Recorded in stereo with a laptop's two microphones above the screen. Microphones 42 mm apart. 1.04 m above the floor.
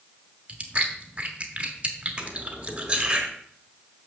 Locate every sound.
0.5 s chewing: 35° right (ahead or behind), 1.0 m
2.2 s cutlery clinking: 30° right (ahead or behind), 1.1 m